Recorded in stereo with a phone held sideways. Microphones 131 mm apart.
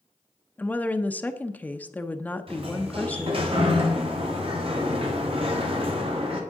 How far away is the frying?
I don't hear frying.